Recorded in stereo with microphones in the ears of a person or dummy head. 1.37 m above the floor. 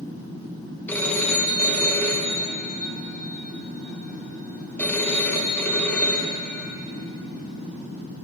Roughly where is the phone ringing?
Centre.